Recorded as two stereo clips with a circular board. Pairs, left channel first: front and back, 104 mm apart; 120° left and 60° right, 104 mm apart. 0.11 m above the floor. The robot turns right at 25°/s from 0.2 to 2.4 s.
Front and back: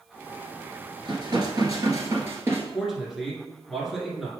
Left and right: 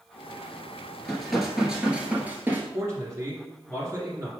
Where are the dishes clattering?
160° right, 1.3 m; by 2.6 s 125° right, 1.3 m.